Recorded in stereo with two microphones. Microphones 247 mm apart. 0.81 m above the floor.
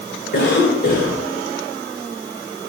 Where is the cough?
45° left (ahead or behind), 2.5 m.